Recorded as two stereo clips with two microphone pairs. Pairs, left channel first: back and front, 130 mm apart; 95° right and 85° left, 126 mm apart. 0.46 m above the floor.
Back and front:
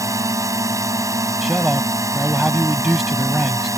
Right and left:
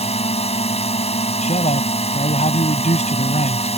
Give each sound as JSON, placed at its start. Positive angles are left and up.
{"t": 0.0, "sound": "a drone", "azimuth_deg": -65}
{"t": 1.4, "sound": "a man speaking", "azimuth_deg": -90}